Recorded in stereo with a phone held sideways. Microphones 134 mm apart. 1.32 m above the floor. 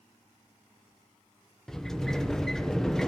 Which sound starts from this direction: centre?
A sliding door, at 1.7 s.